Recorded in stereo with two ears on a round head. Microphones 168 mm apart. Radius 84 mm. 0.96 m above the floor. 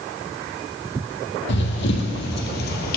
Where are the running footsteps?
65° left (ahead or behind), 2.5 m; by 3.0 s 55° left (ahead or behind), 1.6 m.